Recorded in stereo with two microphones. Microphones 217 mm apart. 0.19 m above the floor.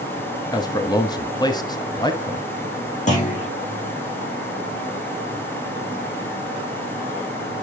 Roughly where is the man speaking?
Centre.